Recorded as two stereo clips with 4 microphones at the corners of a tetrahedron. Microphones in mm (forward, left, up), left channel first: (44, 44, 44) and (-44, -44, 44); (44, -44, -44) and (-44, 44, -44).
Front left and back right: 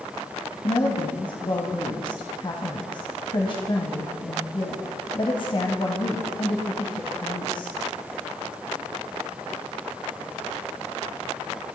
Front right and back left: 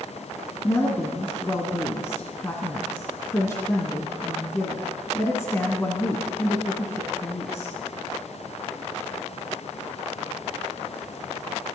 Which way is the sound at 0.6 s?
15° left.